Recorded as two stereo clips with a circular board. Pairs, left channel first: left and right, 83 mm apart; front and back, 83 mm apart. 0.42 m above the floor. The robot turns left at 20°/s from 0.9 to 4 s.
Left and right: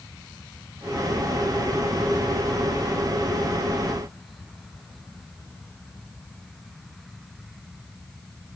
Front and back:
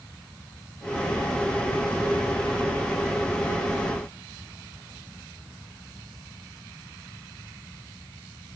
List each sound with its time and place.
Only background noise.